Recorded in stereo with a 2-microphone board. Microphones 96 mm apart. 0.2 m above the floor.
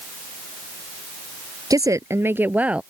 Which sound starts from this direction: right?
A woman speaking, at 1.7 s.